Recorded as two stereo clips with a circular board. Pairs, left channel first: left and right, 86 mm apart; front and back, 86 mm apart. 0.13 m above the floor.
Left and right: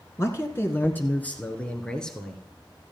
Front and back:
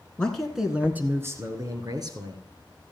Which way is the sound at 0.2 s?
70° left.